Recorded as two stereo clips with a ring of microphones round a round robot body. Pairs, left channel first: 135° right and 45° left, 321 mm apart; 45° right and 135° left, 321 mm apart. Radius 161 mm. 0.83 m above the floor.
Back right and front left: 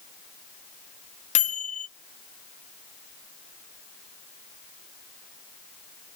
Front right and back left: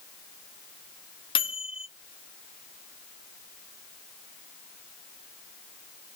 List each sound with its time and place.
1.4 s a microwave: 100° right, 0.6 m